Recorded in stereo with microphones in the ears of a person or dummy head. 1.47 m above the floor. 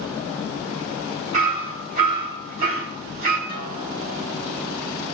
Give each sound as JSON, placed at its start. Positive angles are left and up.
{"t": 1.3, "sound": "hammering", "side_deg": -40, "distance_m": 4.0}
{"t": 3.5, "sound": "a guitar", "side_deg": -45, "distance_m": 5.5}